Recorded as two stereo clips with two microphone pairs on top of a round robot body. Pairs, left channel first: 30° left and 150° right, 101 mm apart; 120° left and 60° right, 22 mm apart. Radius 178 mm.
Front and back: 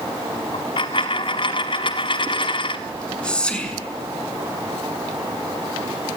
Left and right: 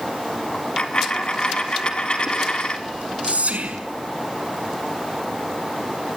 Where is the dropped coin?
75° left, 0.8 m.